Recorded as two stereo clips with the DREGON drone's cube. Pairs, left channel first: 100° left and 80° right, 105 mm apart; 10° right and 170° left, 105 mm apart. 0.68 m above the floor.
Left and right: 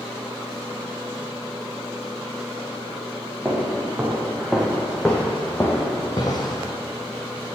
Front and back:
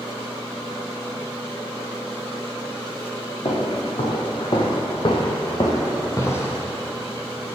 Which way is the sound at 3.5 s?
5° right.